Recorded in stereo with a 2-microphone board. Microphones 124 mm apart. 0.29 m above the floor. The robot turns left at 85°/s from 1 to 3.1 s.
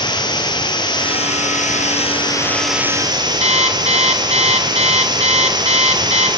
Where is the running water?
145° left, 4.5 m; by 6.4 s 35° right, 4.5 m.